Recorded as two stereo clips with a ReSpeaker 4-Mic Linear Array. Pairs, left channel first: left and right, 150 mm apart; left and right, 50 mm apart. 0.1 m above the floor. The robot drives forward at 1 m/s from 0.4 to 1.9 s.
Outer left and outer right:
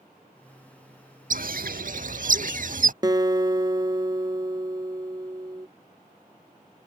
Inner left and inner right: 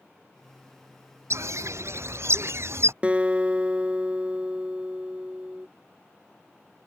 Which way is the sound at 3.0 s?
30° right (ahead or behind).